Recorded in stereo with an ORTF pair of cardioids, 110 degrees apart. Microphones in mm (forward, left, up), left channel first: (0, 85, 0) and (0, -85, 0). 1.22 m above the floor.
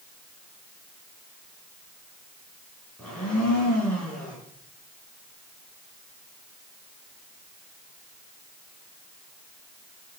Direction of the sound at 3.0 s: 5° left.